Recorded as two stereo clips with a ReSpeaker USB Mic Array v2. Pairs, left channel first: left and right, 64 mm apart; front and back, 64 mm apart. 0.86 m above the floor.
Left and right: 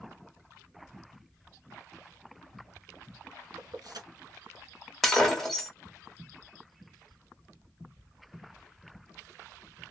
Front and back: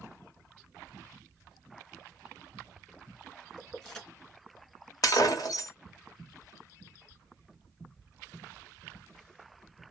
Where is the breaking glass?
Straight ahead, 1.2 m.